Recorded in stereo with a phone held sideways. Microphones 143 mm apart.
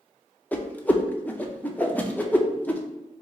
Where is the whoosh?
10° left (ahead or behind), 0.6 m.